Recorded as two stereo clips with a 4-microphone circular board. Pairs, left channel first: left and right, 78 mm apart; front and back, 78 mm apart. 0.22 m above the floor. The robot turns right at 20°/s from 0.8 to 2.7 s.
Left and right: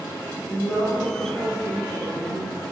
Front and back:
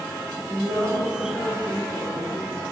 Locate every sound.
0.5 s a woman speaking: 155° left, 1.7 m; by 2.6 s 170° right, 1.7 m